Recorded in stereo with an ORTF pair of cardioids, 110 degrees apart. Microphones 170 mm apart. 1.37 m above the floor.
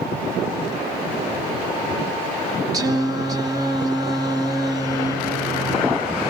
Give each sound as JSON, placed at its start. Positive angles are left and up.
{"t": 2.7, "sound": "singing", "azimuth_deg": -20, "distance_m": 1.4}